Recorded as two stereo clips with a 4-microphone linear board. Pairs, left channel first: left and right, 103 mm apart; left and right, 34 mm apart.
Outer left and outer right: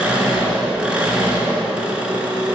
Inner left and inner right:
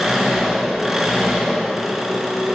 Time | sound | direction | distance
0.0 | an engine running | 10° right (ahead or behind) | 2.5 m